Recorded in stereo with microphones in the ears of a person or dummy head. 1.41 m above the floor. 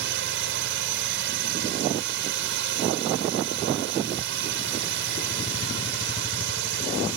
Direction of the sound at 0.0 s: 60° right (ahead or behind).